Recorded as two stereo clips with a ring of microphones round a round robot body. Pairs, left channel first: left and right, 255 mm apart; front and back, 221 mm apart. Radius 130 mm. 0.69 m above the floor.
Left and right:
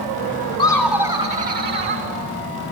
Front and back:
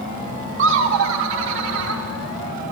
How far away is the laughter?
About 0.8 m.